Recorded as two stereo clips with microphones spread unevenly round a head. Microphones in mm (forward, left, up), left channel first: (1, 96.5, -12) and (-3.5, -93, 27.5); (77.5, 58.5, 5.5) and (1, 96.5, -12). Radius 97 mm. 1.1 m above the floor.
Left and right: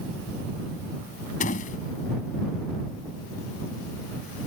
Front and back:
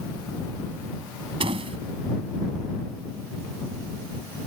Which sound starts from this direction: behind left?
A door slam, at 1.4 s.